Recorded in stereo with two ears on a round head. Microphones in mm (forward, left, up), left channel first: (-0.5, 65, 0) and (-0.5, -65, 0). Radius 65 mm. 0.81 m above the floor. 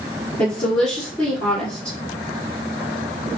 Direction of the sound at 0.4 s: 5° left (ahead or behind).